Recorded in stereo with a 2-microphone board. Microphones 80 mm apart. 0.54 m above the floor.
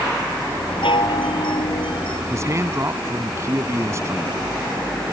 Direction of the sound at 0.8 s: 80° left.